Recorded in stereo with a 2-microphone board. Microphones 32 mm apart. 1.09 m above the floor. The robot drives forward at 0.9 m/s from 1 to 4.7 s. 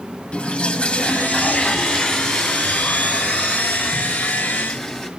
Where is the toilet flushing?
35° left (ahead or behind), 1.0 m; by 5.1 s 10° left (ahead or behind), 4 m.